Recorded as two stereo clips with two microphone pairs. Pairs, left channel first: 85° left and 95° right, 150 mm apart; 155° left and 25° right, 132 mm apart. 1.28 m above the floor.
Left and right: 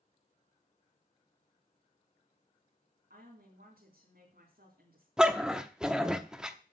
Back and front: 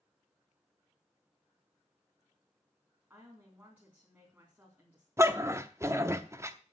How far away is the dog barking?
About 0.8 m.